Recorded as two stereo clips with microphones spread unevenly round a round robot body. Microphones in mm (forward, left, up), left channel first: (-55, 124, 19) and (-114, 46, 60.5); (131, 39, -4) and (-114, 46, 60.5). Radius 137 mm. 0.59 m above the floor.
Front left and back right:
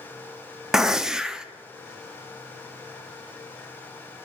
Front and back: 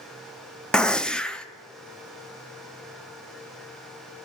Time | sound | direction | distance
0.7 | a gunshot | 25° left | 0.7 m